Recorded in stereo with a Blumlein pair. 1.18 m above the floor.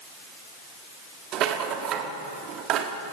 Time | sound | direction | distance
1.3 | a rattle | 35° right | 1.3 m